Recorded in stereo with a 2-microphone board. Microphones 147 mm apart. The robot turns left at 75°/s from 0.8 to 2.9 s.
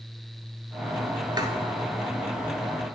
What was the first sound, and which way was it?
Writing, 30° right (ahead or behind).